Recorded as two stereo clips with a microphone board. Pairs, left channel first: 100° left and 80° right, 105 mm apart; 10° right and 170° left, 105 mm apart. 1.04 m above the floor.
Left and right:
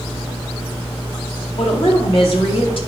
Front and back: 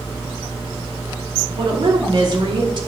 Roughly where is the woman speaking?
Behind left.